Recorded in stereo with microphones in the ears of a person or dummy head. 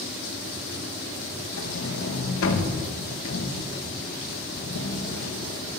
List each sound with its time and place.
1.6 s a sliding door: 75° left (ahead or behind), 1.6 m